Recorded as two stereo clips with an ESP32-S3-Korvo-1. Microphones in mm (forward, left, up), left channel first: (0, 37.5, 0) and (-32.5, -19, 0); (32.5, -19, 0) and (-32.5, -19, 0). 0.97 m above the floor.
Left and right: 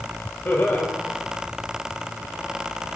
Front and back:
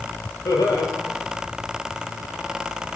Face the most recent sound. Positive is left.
turn(degrees=5)